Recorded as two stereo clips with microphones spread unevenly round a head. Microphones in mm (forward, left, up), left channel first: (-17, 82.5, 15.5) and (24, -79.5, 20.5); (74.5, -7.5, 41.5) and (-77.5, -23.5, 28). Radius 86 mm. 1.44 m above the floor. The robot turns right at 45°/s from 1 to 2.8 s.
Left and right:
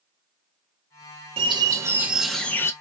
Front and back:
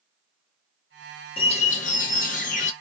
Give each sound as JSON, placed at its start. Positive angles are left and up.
{"t": 1.4, "sound": "a bird", "azimuth_deg": -30, "distance_m": 0.6}